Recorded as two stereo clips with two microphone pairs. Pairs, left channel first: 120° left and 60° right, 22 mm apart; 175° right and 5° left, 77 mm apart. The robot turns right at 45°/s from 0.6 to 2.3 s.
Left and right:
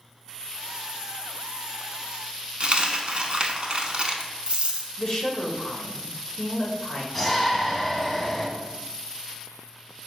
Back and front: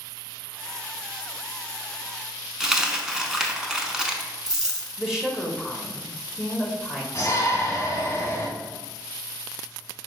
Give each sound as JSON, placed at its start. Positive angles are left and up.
{"t": 2.6, "sound": "a dropped coin", "azimuth_deg": -80, "distance_m": 0.6}
{"t": 5.0, "sound": "a woman speaking", "azimuth_deg": 85, "distance_m": 0.8}
{"t": 7.2, "sound": "a shout", "azimuth_deg": -160, "distance_m": 1.1}